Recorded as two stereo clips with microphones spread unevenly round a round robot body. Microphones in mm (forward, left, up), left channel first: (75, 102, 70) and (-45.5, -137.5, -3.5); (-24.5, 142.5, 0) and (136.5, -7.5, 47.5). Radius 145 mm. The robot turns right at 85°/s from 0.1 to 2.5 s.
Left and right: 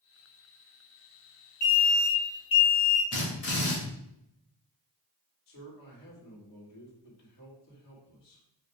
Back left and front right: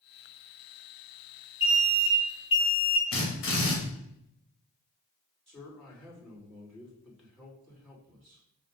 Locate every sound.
1.6 s an alarm: 35° left, 3 m; by 3.0 s 115° left, 3 m
3.1 s a drill: 115° left, 2.5 m
5.5 s a man speaking: 55° left, 3 m